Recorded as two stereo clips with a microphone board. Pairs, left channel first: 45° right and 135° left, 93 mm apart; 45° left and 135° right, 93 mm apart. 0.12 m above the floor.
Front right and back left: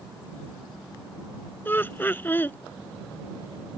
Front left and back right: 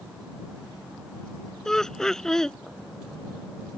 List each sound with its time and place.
1.6 s laughter: 30° right